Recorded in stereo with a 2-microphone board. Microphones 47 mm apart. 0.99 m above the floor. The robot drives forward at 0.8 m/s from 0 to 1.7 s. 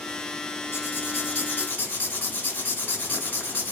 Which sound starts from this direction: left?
Writing, at 0.7 s.